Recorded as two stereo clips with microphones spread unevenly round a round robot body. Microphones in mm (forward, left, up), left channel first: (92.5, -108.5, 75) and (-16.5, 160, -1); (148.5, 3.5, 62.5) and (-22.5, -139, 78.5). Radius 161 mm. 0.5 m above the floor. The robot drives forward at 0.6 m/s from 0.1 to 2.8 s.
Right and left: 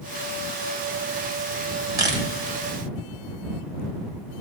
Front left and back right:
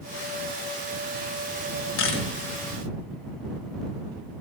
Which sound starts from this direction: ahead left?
A camera shutter, at 2.0 s.